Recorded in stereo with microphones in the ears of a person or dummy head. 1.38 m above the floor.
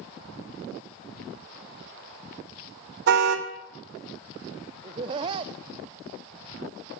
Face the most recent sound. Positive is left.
turn(degrees=-25)  # may be behind; listen again after turning